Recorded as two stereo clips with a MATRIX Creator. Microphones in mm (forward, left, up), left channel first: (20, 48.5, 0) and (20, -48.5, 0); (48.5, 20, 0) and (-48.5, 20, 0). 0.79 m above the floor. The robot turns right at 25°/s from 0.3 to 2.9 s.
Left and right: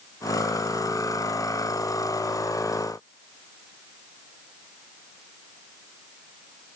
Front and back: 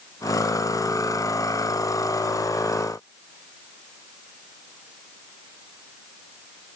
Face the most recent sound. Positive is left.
No sound to turn to.